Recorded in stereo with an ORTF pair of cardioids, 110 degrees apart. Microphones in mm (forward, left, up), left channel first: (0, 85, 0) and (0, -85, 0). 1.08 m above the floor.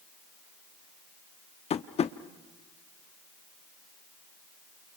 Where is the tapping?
40° left, 1.0 m.